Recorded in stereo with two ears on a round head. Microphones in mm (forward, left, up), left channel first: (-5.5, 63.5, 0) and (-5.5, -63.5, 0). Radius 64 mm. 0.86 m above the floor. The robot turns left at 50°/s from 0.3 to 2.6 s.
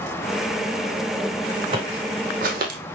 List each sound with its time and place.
1.7 s footsteps: 35° right (ahead or behind), 3 m; by 2.8 s 70° right (ahead or behind), 2.5 m